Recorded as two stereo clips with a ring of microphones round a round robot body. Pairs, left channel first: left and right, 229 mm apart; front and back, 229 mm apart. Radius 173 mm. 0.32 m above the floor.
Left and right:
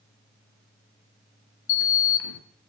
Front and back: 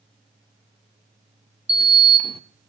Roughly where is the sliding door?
Behind left.